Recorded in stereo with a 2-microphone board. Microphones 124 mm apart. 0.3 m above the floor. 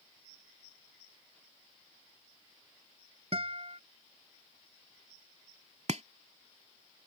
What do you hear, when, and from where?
3.3 s a guitar: 50° right (ahead or behind)
5.9 s chopping: 65° right (ahead or behind)